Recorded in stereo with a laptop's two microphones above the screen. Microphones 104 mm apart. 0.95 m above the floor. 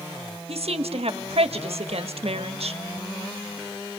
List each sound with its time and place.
0.5 s a woman speaking: 75° right (ahead or behind), 1.4 m